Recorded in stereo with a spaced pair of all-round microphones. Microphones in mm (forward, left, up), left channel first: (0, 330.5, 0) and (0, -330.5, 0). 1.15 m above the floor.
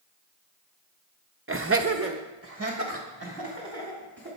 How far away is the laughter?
About 0.5 m.